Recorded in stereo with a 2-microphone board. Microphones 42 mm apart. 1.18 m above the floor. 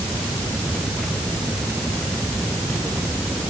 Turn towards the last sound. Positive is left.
No sound to turn to.